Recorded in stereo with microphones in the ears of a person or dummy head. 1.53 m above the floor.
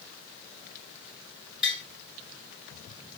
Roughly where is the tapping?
Centre.